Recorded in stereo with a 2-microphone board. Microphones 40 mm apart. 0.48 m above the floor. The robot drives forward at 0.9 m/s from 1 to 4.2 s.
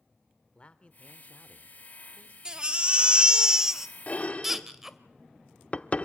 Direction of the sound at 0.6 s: 30° left (ahead or behind).